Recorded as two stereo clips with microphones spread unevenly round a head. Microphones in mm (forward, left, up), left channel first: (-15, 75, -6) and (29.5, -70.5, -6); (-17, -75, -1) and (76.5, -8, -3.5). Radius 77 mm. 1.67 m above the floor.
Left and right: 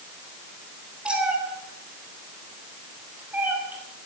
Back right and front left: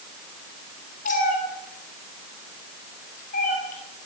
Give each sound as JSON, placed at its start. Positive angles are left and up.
{"t": 1.1, "sound": "a cat meowing", "azimuth_deg": -155, "distance_m": 4.0}